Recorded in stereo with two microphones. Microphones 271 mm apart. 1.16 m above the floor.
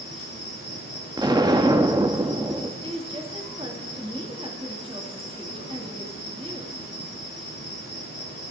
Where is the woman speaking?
20° right (ahead or behind), 1.7 m.